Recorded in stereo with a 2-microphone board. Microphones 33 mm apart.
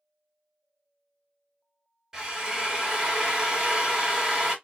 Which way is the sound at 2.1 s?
15° right (ahead or behind).